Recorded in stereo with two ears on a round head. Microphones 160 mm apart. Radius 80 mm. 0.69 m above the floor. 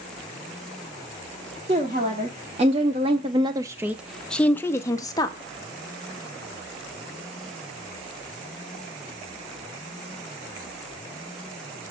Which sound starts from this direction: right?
A woman speaking, at 1.7 s.